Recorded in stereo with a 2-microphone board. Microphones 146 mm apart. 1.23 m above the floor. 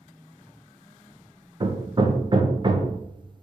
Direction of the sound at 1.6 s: 35° right (ahead or behind).